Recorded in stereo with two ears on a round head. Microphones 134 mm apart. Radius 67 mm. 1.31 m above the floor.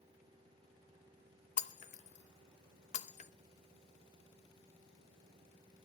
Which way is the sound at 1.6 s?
50° left (ahead or behind).